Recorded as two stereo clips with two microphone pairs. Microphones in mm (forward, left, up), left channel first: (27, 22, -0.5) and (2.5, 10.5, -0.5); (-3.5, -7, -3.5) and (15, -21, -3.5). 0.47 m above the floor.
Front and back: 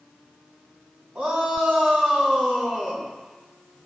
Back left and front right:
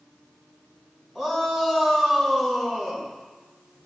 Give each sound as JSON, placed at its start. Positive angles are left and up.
{"t": 1.1, "sound": "a shout", "azimuth_deg": -130, "distance_m": 4.0}